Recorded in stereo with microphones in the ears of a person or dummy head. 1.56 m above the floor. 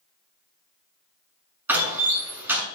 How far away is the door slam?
About 7.5 m.